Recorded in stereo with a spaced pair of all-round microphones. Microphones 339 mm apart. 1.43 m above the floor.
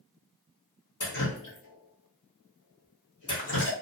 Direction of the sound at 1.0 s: 60° left (ahead or behind).